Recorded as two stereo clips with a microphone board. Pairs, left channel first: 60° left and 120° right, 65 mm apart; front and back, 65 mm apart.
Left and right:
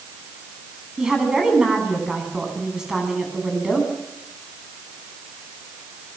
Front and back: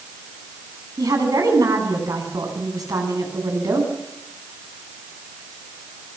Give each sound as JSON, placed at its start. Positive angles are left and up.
{"t": 1.0, "sound": "a woman speaking", "azimuth_deg": 160, "distance_m": 10.0}